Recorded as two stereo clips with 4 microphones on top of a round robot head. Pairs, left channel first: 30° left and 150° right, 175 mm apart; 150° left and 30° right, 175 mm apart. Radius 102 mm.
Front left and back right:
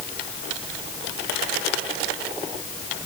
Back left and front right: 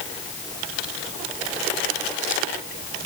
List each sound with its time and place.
Only background noise.